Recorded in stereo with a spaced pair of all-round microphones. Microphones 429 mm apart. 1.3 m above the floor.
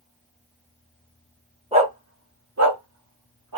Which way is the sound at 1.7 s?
15° right (ahead or behind).